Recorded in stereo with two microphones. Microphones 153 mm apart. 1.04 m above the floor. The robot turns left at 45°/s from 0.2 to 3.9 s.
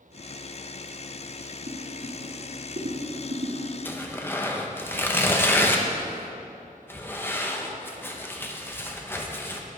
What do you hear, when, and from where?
1.7 s boiling: 40° right (ahead or behind), 2.5 m; by 3.6 s 50° right (ahead or behind), 2.5 m
3.9 s tearing paper: 10° left (ahead or behind), 0.9 m; by 9.6 s 15° left (ahead or behind), 0.9 m